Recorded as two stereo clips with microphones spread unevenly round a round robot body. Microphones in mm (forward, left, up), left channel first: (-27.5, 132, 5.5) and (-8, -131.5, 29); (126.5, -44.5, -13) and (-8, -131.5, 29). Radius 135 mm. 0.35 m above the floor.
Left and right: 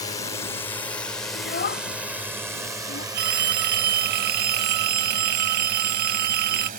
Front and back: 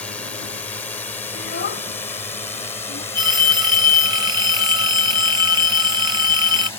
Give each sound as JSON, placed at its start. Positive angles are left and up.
{"t": 0.0, "sound": "a drone", "azimuth_deg": 55}
{"t": 1.4, "sound": "a child speaking", "azimuth_deg": 40}
{"t": 3.1, "sound": "a phone ringing", "azimuth_deg": -75}